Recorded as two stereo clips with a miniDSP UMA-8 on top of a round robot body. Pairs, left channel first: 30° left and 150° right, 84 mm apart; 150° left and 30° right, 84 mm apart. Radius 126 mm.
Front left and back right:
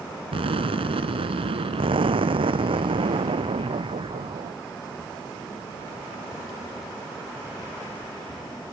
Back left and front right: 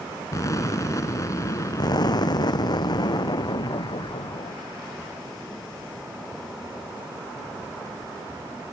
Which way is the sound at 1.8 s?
170° right.